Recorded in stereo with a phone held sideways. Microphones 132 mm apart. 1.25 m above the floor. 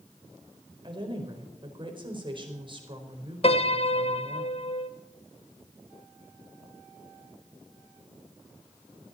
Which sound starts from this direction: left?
A piano, at 3.4 s.